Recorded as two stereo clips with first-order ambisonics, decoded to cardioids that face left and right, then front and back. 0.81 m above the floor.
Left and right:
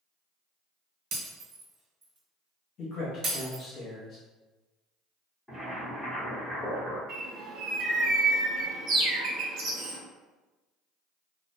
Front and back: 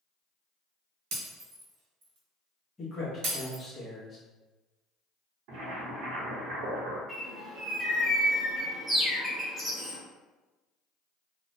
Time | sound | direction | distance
1.1 | breaking glass | 145° right | 1.1 m
2.8 | a man speaking | 65° left | 0.9 m
5.5 | boiling | 170° left | 0.8 m
7.1 | a bird | 105° right | 0.6 m